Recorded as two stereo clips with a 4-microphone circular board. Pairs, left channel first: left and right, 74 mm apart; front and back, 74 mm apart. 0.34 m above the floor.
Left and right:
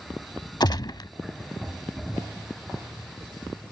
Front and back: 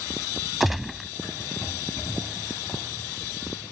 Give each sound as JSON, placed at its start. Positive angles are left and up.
{"t": 0.6, "sound": "a gunshot", "azimuth_deg": 95}